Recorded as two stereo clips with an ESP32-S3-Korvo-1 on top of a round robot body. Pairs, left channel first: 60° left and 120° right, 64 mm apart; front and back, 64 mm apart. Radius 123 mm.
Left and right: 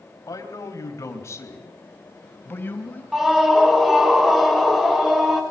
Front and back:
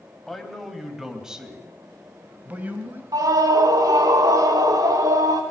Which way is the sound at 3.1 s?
155° left.